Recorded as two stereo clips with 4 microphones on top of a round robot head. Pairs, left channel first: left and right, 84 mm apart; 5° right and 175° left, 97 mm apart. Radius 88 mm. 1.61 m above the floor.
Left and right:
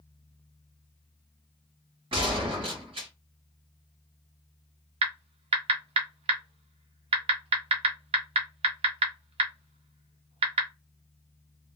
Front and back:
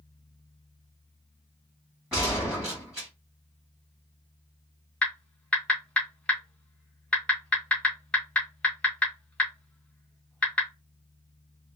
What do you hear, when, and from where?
2.1 s a gunshot: 100° right, 1.5 m
5.0 s typing on a keyboard: 90° right, 0.7 m